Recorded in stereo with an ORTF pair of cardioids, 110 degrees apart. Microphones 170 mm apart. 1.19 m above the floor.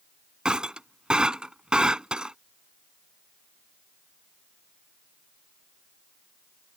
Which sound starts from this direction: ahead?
Breaking glass, at 0.5 s.